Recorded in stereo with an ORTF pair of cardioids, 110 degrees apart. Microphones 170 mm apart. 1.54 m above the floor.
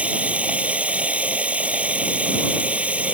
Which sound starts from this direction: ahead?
Running water, at 0.0 s.